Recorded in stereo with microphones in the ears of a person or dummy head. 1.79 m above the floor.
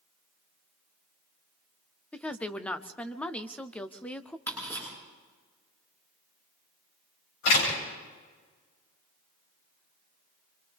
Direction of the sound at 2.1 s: 10° left (ahead or behind).